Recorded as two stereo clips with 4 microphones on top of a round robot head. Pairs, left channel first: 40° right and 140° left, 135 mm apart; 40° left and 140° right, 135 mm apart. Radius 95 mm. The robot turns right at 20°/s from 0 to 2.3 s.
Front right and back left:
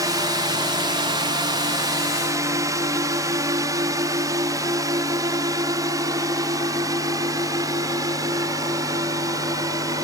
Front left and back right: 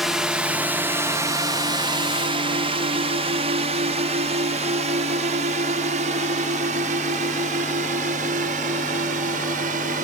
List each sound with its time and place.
0.0 s a drone: 135° left; by 10.0 s 155° right